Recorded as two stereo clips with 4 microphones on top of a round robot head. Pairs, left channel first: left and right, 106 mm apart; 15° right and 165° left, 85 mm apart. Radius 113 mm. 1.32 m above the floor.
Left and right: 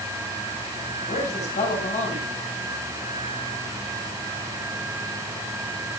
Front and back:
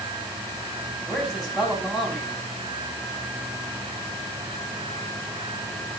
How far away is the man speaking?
About 10 m.